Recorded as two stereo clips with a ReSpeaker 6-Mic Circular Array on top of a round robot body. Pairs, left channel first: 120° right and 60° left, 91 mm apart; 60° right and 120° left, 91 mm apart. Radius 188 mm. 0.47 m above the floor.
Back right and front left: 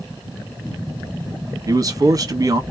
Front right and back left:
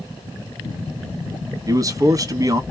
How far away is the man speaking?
About 1.0 m.